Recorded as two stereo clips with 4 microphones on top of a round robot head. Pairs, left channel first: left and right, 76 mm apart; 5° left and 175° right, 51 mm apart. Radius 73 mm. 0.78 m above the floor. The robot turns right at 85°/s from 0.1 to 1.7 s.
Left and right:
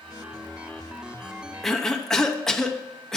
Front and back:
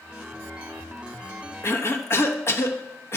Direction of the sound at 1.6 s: Straight ahead.